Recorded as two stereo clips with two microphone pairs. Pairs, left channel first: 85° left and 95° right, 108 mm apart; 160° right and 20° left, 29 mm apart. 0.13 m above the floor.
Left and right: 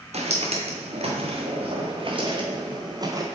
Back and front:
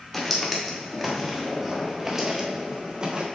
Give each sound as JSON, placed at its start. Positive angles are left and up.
{"t": 0.1, "sound": "footsteps", "azimuth_deg": -75, "distance_m": 3.0}